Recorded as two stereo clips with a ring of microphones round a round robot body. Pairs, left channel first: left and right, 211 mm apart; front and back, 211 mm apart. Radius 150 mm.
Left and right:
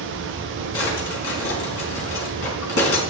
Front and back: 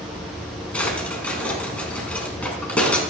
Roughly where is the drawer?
Left.